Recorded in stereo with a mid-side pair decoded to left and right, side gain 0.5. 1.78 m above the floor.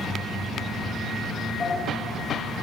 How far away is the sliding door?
About 6.5 m.